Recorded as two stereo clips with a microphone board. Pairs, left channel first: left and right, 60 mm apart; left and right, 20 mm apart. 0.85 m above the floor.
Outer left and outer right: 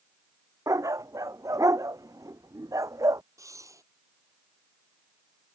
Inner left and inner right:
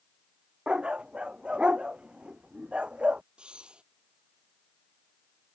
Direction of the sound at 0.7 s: 75° right (ahead or behind).